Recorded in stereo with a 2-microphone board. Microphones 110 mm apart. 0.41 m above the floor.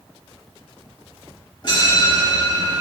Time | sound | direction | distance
1.6 | a bell | 45° left (ahead or behind) | 1.3 m